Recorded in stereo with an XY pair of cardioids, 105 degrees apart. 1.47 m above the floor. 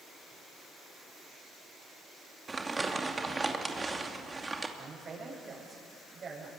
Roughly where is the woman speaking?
Ahead right.